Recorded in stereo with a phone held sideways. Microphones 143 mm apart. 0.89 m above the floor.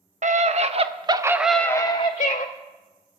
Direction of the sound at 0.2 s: 60° right (ahead or behind).